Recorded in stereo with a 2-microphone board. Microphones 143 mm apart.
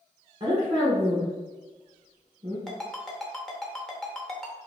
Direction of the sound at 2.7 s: 5° left (ahead or behind).